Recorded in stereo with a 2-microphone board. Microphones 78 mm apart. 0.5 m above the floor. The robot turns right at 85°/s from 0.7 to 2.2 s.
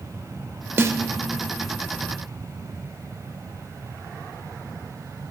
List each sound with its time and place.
0.8 s a snare drum: 30° right (ahead or behind), 0.6 m; by 1.0 s 50° right (ahead or behind), 0.6 m